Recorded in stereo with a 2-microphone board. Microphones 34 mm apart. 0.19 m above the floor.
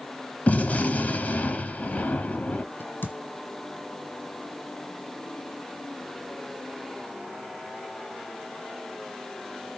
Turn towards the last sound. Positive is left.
turn(degrees=85)